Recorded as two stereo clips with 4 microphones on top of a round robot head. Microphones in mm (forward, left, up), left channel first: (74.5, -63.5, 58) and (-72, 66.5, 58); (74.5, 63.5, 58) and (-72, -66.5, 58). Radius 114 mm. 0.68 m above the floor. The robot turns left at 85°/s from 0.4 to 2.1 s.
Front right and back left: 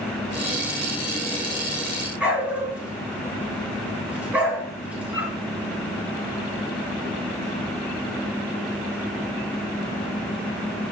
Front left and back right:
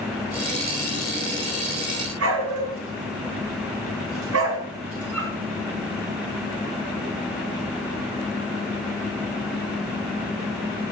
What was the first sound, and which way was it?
A dog barking, 140° right.